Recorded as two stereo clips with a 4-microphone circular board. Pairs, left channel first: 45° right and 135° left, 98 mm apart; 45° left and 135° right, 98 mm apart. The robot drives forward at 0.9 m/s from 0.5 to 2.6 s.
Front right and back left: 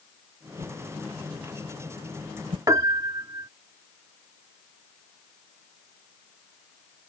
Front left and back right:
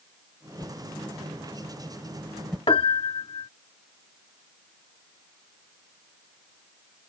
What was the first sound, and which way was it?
A whoosh, 115° left.